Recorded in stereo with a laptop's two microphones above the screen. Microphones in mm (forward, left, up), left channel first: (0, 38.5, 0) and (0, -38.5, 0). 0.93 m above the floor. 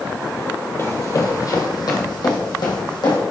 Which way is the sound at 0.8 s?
35° left (ahead or behind).